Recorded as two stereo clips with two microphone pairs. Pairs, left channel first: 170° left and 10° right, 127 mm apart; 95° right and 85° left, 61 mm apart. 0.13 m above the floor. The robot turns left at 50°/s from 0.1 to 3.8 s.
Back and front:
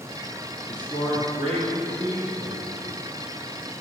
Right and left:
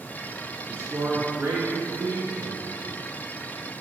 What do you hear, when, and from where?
0.7 s a man speaking: 125° left, 3 m; by 2.7 s 25° left, 3 m